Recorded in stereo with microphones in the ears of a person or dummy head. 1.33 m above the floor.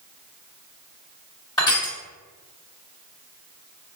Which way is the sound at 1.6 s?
20° left (ahead or behind).